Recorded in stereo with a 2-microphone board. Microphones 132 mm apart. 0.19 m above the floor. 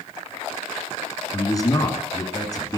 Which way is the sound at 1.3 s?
30° left (ahead or behind).